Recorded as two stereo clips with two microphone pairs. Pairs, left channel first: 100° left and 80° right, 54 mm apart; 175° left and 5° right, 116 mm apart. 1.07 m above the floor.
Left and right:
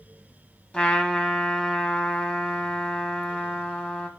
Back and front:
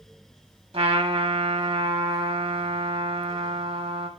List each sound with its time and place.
0.7 s a trumpet: 30° left, 1.7 m